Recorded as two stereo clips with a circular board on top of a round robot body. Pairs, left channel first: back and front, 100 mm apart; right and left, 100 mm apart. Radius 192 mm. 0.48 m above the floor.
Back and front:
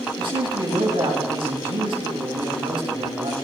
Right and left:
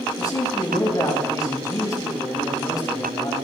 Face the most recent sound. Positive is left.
turn(degrees=-35)